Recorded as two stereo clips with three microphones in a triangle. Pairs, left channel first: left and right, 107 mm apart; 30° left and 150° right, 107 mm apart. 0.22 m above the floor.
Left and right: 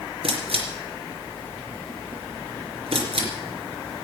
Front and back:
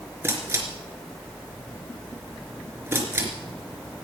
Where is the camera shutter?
85° right, 3.5 m.